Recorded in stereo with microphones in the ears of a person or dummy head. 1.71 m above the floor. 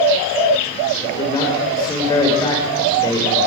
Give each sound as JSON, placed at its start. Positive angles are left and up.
{"t": 1.0, "sound": "a man speaking", "side_deg": 15, "distance_m": 6.0}